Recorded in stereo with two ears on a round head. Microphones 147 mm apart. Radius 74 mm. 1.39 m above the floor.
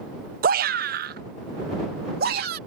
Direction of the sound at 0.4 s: 60° right (ahead or behind).